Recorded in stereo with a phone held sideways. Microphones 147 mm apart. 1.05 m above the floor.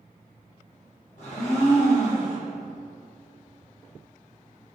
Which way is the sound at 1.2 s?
60° left (ahead or behind).